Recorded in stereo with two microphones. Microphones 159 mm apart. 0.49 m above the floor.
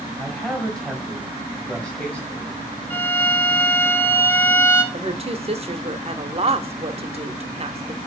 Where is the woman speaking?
40° right (ahead or behind), 0.9 m.